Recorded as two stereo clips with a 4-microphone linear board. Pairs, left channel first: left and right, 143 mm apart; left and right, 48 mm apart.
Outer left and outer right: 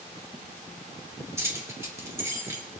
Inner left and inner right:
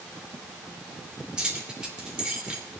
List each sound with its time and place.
1.4 s keys jangling: 20° right (ahead or behind), 3 m